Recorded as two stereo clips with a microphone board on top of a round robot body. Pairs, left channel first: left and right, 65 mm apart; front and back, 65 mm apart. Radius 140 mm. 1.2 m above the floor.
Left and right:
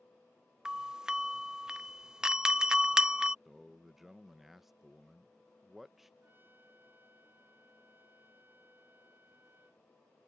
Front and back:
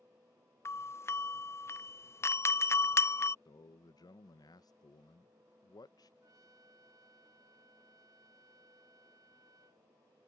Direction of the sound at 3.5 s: Straight ahead.